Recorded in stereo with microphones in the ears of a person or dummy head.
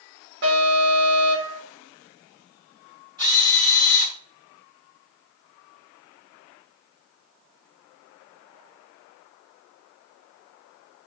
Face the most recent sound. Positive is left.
turn(degrees=-15)  # may be behind; listen again after turning